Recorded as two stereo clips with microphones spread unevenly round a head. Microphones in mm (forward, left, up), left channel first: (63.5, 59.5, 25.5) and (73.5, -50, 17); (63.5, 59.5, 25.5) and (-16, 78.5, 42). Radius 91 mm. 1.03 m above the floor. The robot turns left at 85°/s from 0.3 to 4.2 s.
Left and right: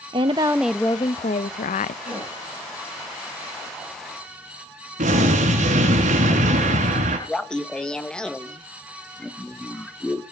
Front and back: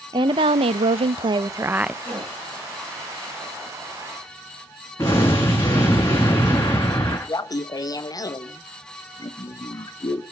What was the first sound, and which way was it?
A woman speaking, 140° right.